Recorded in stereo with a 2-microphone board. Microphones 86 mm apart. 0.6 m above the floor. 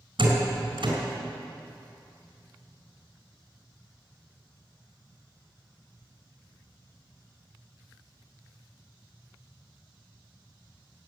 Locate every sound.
0.2 s a door slam: 65° right (ahead or behind), 4 m